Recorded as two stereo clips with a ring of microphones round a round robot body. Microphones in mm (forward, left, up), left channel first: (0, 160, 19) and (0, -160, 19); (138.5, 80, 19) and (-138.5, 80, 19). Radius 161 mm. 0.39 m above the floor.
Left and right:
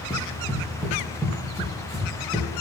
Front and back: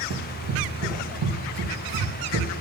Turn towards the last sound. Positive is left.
turn(degrees=-160)